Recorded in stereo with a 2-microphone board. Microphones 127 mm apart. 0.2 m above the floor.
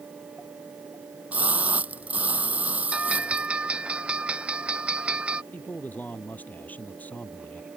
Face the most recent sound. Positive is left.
turn(degrees=15)  # may be behind; listen again after turning